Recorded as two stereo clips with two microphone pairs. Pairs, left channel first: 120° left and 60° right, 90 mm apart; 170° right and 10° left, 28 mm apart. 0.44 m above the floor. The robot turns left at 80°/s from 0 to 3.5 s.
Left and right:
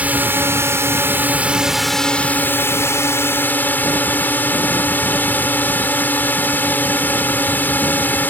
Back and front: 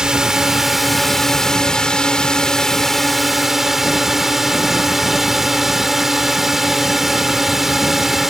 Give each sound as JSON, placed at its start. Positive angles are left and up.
{"t": 0.0, "sound": "a drone", "azimuth_deg": -5}